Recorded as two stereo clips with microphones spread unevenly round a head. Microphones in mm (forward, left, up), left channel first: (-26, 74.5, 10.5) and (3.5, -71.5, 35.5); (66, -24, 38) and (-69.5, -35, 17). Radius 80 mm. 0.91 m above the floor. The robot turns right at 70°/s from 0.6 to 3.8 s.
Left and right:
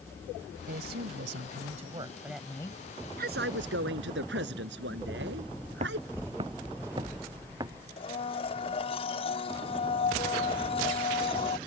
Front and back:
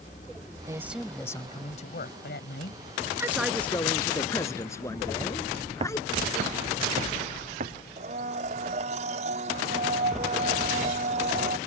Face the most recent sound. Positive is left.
turn(degrees=150)